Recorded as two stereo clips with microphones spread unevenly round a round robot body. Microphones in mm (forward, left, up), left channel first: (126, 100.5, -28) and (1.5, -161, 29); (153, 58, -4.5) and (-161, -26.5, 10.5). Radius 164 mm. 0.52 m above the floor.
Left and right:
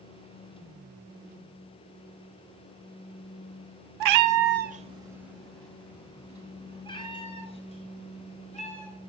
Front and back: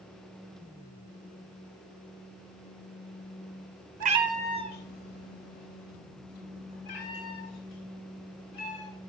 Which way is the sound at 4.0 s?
100° right.